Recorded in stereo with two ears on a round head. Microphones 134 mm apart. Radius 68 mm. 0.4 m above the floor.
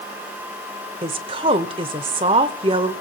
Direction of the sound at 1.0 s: 40° right (ahead or behind).